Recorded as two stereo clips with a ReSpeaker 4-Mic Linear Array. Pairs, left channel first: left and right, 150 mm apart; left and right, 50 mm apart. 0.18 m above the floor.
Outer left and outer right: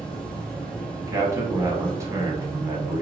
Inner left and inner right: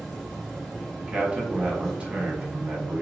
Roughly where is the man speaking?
Centre.